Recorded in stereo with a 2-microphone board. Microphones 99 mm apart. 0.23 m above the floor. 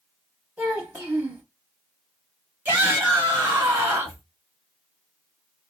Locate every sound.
0.6 s a child speaking: 15° right (ahead or behind), 0.6 m
2.6 s a shout: 20° right (ahead or behind), 1.0 m